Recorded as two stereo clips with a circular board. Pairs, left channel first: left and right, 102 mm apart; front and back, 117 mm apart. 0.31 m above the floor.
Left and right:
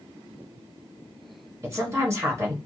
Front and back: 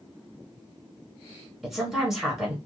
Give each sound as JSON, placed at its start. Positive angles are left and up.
{"t": 1.6, "sound": "a woman speaking", "azimuth_deg": -95, "distance_m": 1.2}